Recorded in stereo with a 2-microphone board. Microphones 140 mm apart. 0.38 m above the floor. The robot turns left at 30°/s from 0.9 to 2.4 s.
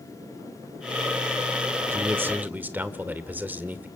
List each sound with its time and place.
1.9 s a man speaking: 15° right (ahead or behind), 1.0 m